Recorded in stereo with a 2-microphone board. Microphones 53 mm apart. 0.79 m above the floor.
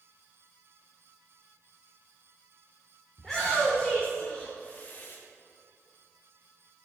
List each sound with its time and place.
3.2 s a shout: 5° left (ahead or behind), 2 m; by 5.2 s 50° left (ahead or behind), 0.9 m